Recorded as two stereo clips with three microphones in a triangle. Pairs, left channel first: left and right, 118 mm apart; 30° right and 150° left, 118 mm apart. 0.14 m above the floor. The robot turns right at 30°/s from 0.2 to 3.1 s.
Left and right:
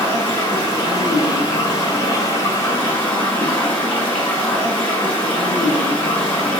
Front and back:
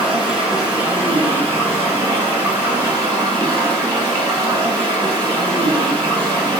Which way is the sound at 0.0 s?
60° left.